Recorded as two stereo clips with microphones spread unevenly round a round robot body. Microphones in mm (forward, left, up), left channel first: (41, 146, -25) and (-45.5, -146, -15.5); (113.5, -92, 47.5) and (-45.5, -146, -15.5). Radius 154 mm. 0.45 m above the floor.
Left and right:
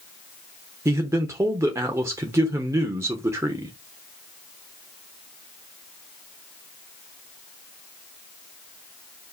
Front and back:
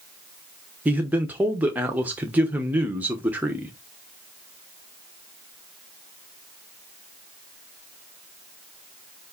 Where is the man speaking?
175° left, 0.8 m.